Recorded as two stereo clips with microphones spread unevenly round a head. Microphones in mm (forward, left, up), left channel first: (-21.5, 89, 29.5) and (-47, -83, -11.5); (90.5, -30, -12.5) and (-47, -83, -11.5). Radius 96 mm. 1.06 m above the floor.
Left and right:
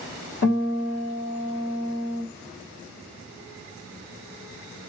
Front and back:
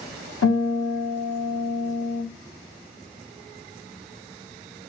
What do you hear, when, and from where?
0.4 s a guitar: 40° left, 1.6 m